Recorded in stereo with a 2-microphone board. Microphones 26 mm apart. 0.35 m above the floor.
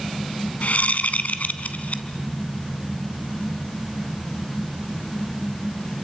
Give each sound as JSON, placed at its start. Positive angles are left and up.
{"t": 0.6, "sound": "a whoosh", "side_deg": 80, "distance_m": 1.0}